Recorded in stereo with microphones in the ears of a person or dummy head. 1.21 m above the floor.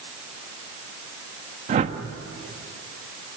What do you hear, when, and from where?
1.7 s a whoosh: 35° right (ahead or behind), 1.5 m